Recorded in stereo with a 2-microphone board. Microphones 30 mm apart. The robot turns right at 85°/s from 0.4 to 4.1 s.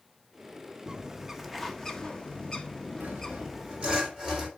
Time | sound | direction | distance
0.9 | a bird | 25° right (ahead or behind) | 0.9 m
3.0 | sawing | 110° right | 3.5 m